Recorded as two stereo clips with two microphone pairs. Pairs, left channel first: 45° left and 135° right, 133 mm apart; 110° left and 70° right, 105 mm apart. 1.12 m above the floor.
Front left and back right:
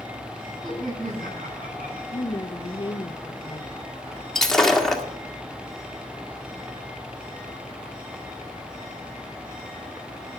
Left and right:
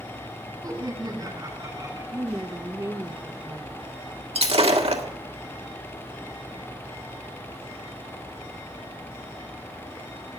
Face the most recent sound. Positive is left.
turn(degrees=-45)